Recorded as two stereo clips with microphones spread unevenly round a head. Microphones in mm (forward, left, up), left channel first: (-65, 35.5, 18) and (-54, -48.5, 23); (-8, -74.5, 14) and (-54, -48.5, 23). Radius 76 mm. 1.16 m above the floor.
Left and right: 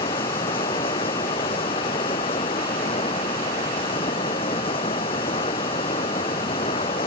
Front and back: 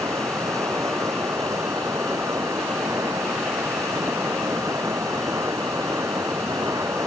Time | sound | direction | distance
0.0 | running water | 90° left | ?